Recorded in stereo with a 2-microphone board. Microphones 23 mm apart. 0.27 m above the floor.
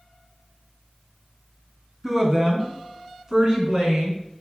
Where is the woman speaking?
20° right (ahead or behind), 2.5 m; by 4.2 s 35° right (ahead or behind), 4 m.